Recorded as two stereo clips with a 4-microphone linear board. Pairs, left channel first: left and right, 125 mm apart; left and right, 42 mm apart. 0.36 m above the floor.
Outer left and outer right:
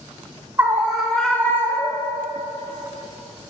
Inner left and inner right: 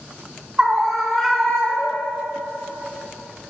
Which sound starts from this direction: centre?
A scream, at 0.6 s.